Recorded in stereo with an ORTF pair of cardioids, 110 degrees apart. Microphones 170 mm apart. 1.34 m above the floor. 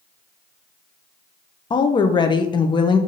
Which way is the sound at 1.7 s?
30° left.